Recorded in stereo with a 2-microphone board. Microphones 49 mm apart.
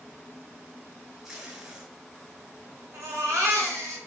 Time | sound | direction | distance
1.2 | tape being pulled | 15° right (ahead or behind) | 1.7 m
2.9 | a baby crying | 75° right (ahead or behind) | 1.3 m